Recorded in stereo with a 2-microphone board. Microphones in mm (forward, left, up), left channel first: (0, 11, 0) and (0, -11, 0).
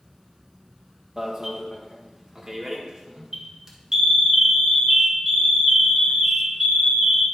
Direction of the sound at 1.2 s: 25° right (ahead or behind).